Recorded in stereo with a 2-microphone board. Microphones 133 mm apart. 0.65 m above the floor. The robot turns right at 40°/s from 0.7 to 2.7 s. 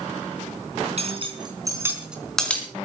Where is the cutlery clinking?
60° right (ahead or behind), 3.5 m; by 2.7 s 15° left (ahead or behind), 3.5 m.